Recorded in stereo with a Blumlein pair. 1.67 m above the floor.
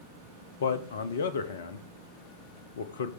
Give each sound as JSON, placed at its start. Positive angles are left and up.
{"t": 0.6, "sound": "a man speaking", "azimuth_deg": 60, "distance_m": 1.1}